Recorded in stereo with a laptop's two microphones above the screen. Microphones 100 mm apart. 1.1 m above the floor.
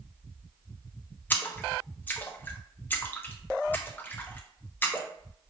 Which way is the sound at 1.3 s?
20° left (ahead or behind).